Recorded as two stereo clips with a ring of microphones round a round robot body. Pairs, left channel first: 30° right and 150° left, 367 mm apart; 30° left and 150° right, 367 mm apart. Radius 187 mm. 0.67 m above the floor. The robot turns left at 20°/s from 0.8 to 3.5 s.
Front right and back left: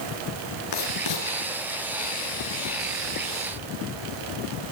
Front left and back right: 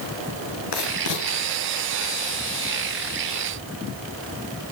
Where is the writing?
5° left, 7 m; by 1.3 s 5° right, 7 m.